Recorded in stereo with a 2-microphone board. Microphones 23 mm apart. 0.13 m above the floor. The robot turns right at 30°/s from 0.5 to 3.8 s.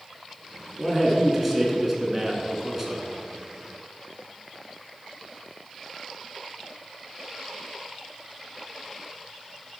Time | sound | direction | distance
0.8 | a man speaking | 5° left (ahead or behind) | 1.4 m